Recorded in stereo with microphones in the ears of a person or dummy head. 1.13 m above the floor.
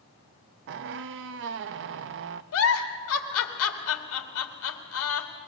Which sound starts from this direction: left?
A giggle, at 2.5 s.